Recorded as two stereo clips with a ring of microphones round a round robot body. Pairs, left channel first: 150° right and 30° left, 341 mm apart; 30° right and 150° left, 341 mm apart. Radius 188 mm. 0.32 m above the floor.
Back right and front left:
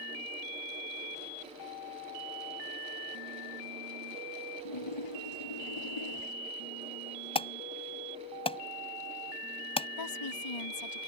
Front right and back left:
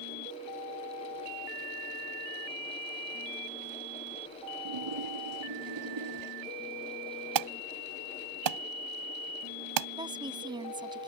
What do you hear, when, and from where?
4.7 s a splash: 175° right
7.3 s an alarm: 135° left
10.0 s a woman speaking: 135° right